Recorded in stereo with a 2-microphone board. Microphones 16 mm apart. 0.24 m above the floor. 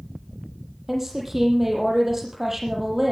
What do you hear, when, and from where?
0.9 s a woman speaking: 20° right (ahead or behind), 7 m